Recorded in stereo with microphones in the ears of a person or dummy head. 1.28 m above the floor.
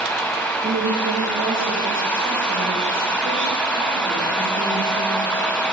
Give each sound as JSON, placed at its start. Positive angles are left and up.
{"t": 0.6, "sound": "a woman speaking", "side_deg": -40, "distance_m": 6.5}